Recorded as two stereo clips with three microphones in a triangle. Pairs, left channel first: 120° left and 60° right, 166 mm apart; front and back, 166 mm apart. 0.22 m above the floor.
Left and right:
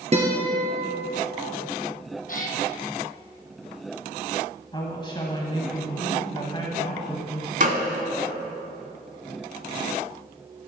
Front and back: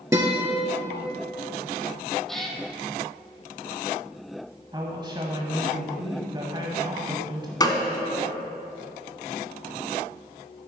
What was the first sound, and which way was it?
A guitar, 110° right.